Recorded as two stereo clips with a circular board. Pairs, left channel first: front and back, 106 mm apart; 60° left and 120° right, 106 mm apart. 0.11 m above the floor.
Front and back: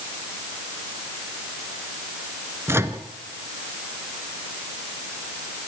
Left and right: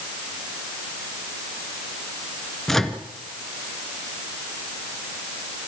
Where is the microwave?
145° left, 1.4 m.